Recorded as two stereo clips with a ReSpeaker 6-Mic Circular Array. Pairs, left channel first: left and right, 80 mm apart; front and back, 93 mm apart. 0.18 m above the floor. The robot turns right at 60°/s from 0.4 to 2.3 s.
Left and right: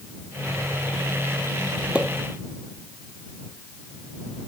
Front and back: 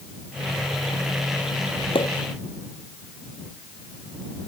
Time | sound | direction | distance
1.9 | a pop | 15° right | ?